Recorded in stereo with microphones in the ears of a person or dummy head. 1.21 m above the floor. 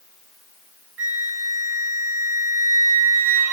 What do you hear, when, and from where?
1.0 s a flute: 10° right (ahead or behind), 5 m